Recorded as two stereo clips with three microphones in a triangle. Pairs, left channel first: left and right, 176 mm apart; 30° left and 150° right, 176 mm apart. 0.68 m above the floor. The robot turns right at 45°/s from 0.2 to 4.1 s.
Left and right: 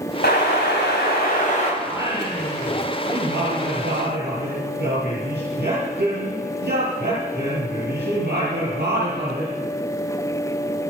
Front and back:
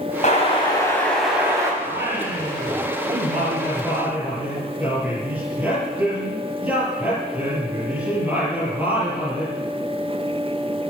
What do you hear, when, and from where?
0.2 s an explosion: 75° left, 4 m; by 1.7 s 140° left, 4 m
1.8 s singing: 175° right, 7 m; by 9.6 s 70° right, 7 m